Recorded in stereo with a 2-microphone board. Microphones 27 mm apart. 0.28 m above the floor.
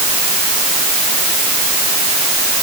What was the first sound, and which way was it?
Only background noise.